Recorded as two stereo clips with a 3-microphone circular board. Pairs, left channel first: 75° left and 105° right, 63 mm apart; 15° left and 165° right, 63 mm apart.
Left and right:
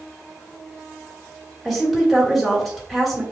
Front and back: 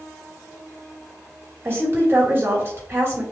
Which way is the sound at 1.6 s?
160° left.